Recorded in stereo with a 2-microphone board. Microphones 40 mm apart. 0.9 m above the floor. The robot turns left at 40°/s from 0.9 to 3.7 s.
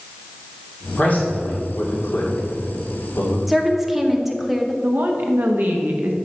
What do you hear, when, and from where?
1.0 s a man speaking: 35° left (ahead or behind), 2.5 m; by 3.4 s 50° left (ahead or behind), 2.5 m
3.5 s a woman speaking: 5° right (ahead or behind), 0.8 m
4.8 s a woman speaking: 55° right (ahead or behind), 1.1 m